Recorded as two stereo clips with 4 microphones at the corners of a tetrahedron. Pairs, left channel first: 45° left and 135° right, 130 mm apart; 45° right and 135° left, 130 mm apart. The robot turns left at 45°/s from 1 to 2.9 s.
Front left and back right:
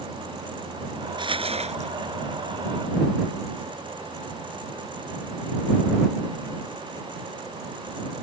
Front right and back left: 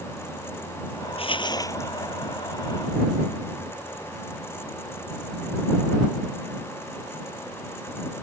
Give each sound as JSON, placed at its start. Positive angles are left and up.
{"t": 1.2, "sound": "crumpling", "azimuth_deg": -85}